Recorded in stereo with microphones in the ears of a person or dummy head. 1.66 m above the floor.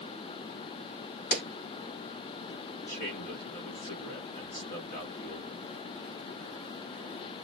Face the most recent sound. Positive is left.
turn(degrees=50)  # may be behind; listen again after turning